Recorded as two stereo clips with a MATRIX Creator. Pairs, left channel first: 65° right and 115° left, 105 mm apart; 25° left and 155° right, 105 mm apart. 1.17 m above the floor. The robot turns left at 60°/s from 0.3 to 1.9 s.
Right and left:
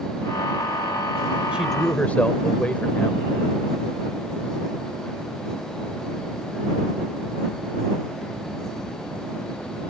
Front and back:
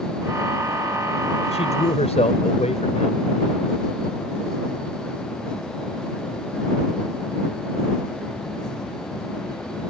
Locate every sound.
1.5 s a man speaking: 35° left; by 3.2 s 10° left